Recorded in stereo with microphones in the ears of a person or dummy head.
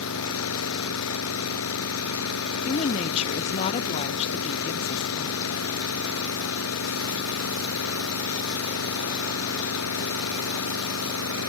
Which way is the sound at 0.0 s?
90° left.